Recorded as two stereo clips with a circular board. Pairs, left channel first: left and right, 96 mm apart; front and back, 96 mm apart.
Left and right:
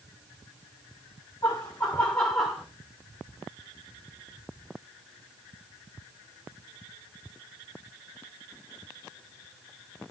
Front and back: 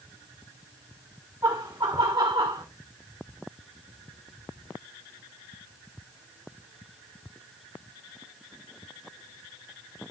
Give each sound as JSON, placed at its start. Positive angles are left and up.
{"t": 1.4, "sound": "laughter", "azimuth_deg": 130, "distance_m": 2.5}